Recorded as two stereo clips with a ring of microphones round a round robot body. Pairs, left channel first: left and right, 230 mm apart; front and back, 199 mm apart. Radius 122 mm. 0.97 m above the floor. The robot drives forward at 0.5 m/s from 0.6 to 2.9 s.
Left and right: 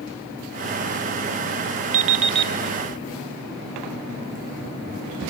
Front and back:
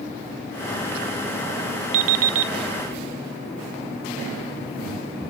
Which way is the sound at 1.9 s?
150° right.